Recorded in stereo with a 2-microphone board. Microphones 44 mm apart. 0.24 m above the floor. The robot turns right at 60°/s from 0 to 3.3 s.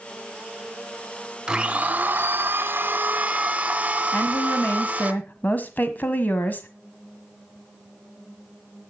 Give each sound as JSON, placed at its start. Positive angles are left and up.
{"t": 1.5, "sound": "a blender", "azimuth_deg": -150, "distance_m": 2.0}
{"t": 4.1, "sound": "a woman speaking", "side_deg": 45, "distance_m": 1.3}